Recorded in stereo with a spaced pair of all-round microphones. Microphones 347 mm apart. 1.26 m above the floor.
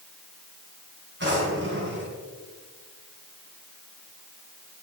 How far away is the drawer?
About 3.5 m.